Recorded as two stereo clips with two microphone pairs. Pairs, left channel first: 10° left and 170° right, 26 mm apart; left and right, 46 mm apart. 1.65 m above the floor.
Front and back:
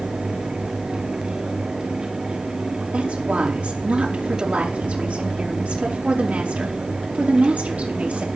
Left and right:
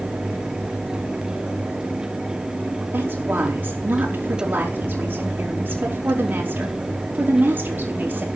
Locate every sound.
2.9 s a woman speaking: 140° right, 4.5 m